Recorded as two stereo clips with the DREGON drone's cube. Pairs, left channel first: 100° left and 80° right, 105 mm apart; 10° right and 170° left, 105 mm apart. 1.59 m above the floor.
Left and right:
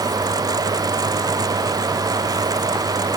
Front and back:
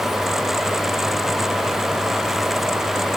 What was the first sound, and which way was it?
Only background noise.